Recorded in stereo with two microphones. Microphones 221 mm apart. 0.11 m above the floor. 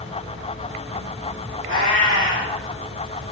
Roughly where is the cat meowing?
Right.